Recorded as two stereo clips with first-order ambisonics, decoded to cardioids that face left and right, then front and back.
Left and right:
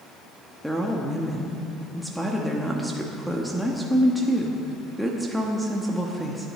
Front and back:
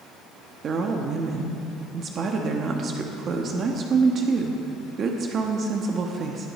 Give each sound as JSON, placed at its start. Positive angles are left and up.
{"t": 0.6, "sound": "a woman speaking", "azimuth_deg": 180, "distance_m": 1.0}